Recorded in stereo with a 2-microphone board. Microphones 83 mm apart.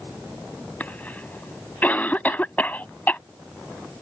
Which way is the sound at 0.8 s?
20° left (ahead or behind).